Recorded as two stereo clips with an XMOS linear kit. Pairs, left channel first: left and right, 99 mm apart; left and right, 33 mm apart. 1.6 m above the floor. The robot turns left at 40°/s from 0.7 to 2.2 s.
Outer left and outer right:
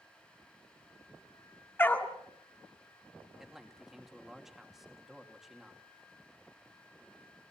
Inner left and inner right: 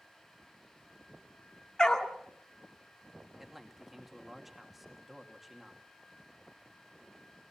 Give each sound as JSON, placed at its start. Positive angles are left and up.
{"t": 1.8, "sound": "a dog barking", "side_deg": 20, "distance_m": 1.8}
{"t": 3.4, "sound": "a man speaking", "side_deg": -5, "distance_m": 2.5}